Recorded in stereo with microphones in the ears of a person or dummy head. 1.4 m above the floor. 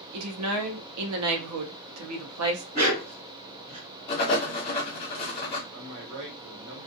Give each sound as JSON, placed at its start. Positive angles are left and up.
{"t": 0.1, "sound": "a woman speaking", "side_deg": -85, "distance_m": 0.7}
{"t": 2.7, "sound": "a dog barking", "side_deg": -25, "distance_m": 1.6}
{"t": 4.1, "sound": "writing", "side_deg": 30, "distance_m": 1.0}
{"t": 5.7, "sound": "a man speaking", "side_deg": -80, "distance_m": 1.0}